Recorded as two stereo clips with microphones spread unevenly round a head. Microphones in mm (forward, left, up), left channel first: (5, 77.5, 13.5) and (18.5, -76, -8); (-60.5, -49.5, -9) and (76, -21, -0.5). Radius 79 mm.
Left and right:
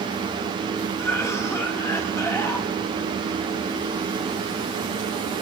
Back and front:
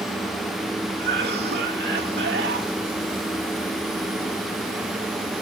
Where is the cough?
20° left, 3.5 m.